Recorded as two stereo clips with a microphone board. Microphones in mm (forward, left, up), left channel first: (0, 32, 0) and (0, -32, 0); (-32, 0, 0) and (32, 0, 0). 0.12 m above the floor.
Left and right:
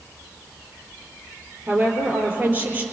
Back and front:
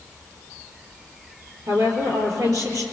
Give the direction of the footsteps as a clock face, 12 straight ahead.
I don't hear footsteps.